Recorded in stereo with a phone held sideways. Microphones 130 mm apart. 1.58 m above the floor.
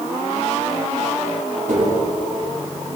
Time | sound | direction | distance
1.7 | tapping | 80° right | 4 m